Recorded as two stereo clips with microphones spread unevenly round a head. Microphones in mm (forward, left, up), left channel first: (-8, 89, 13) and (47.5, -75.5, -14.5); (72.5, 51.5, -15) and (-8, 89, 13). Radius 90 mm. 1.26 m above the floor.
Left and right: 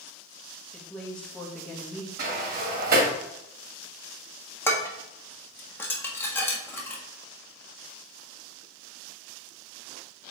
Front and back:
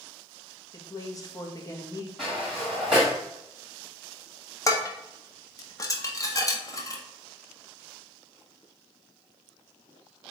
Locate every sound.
0.7 s a woman speaking: 20° left, 1.8 m
2.2 s a sliding door: 120° right, 1.5 m
4.7 s dishes clattering: 30° left, 1.6 m